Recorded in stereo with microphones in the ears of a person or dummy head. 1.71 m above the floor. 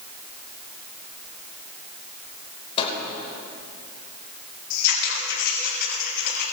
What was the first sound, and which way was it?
A microwave, 40° left (ahead or behind).